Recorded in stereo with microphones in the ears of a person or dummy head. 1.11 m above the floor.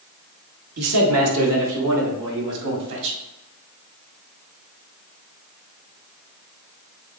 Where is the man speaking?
75° right (ahead or behind), 2 m; by 3.2 s 55° right (ahead or behind), 3.5 m.